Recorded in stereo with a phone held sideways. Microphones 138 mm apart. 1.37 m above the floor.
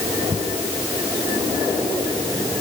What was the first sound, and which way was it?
Only background noise.